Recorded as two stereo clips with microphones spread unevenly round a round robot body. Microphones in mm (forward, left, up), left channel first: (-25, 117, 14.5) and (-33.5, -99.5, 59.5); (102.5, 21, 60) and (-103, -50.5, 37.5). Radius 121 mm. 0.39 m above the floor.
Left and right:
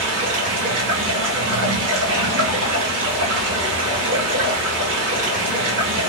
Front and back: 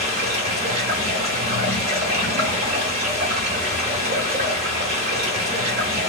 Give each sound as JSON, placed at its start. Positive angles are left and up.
{"t": 0.0, "sound": "running water", "azimuth_deg": -115, "distance_m": 1.7}